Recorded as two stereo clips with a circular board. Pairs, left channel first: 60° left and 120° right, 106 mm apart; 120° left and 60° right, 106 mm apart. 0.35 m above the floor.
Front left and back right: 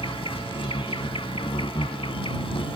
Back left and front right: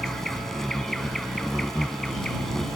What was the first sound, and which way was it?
An insect, 35° left.